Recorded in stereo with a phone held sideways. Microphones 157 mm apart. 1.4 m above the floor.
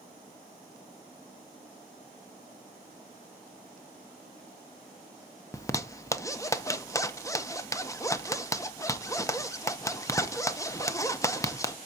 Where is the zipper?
20° left (ahead or behind), 0.7 m.